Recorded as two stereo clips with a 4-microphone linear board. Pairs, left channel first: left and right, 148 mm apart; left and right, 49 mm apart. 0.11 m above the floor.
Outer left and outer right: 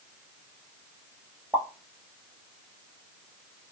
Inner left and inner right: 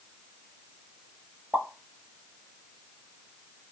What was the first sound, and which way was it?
A pop, 15° right (ahead or behind).